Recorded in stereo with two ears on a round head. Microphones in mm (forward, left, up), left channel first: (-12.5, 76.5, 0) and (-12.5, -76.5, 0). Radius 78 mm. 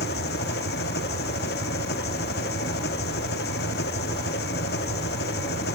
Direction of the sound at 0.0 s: 60° left (ahead or behind).